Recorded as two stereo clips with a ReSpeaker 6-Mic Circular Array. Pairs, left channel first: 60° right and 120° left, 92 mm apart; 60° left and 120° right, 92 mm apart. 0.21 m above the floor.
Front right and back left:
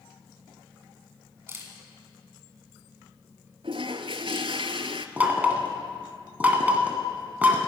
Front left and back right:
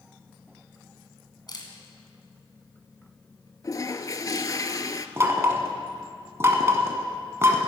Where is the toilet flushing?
110° left, 0.5 m.